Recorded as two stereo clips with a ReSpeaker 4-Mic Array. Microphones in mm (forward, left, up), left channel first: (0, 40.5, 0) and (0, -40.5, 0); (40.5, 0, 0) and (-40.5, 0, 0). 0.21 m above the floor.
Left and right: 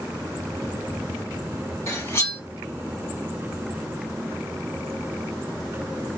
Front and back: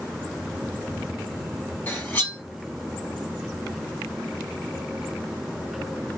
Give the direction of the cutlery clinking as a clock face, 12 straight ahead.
10 o'clock.